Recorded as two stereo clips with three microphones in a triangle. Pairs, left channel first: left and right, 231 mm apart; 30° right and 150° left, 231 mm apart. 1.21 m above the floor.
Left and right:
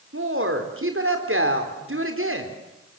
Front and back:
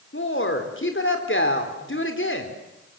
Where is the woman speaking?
65° right, 4 m.